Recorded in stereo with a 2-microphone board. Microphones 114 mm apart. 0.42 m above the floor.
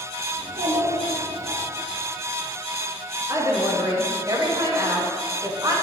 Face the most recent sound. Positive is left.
turn(degrees=-35)  # may be behind; listen again after turning